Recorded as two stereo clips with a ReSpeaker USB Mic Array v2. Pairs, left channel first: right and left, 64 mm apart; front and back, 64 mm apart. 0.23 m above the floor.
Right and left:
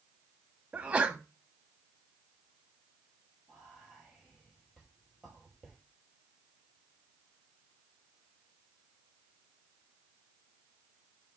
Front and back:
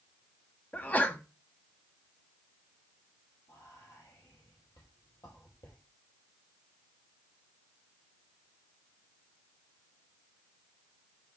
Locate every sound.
0.7 s a sneeze: 35° left, 1.2 m
3.5 s whispering: straight ahead, 5.5 m